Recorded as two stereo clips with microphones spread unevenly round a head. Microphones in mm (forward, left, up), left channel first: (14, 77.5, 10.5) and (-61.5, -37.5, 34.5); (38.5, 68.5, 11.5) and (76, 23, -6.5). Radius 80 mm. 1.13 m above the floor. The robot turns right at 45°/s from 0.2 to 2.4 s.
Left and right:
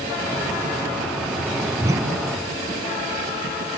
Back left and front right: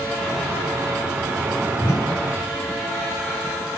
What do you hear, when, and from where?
1.8 s a whoosh: 170° left, 2.5 m; by 2.2 s 170° right, 2.5 m